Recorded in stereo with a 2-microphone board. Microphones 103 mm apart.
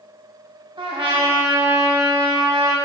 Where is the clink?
I don't hear a clink.